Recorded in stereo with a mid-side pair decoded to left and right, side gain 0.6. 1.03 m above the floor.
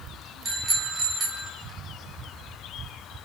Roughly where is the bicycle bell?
Ahead right.